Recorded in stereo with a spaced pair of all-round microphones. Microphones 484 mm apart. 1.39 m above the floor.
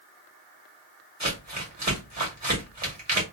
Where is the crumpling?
35° right (ahead or behind), 1.5 m.